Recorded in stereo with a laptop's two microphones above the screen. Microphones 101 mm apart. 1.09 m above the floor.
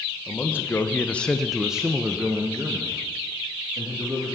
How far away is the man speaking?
About 1.0 m.